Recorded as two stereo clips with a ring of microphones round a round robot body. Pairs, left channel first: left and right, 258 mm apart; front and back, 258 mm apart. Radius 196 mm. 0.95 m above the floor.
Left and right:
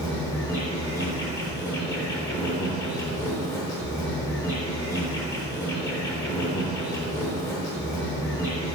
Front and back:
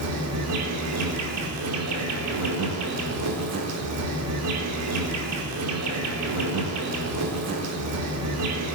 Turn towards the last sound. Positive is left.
turn(degrees=170)